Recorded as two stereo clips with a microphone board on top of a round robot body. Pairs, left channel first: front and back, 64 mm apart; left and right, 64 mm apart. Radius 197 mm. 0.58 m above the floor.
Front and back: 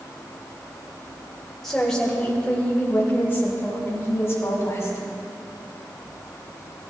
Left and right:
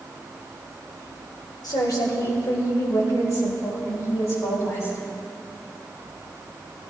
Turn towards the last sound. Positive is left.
turn(degrees=45)